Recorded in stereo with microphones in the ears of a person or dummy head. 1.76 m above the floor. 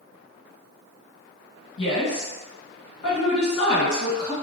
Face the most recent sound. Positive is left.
turn(degrees=75)  # may be behind; listen again after turning